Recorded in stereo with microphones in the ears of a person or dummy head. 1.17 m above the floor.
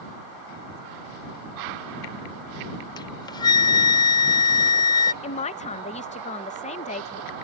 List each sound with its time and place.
3.0 s a flute: 25° left (ahead or behind)
5.2 s a man speaking: 30° left (ahead or behind)